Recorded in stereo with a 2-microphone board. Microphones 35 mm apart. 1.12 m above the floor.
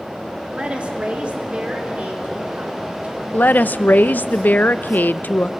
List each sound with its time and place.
0.5 s a woman speaking: 30° right (ahead or behind), 2.5 m; by 3.2 s 45° right (ahead or behind), 4.5 m
3.3 s a woman speaking: 60° left (ahead or behind), 0.6 m